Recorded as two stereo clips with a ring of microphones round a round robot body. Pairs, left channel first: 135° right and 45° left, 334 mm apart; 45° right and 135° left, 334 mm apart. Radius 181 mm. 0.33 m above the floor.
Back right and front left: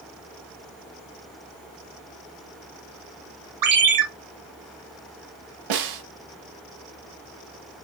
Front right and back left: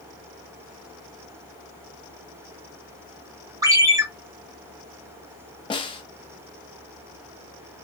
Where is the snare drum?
30° left, 0.7 m.